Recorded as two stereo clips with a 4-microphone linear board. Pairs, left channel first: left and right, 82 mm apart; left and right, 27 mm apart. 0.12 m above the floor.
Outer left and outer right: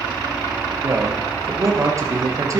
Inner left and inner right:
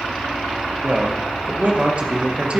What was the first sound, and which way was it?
A man speaking, 40° right (ahead or behind).